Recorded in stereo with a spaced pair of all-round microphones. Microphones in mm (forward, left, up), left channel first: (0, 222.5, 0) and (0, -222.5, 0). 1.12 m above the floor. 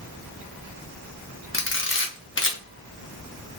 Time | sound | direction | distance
1.5 | a camera shutter | 30° left (ahead or behind) | 0.6 m